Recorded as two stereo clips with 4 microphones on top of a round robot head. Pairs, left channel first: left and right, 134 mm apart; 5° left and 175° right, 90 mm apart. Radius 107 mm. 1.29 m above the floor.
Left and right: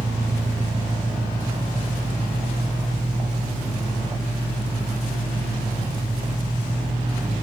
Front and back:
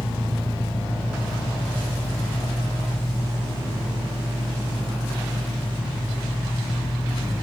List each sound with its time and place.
0.0 s an engine running: 35° right, 0.9 m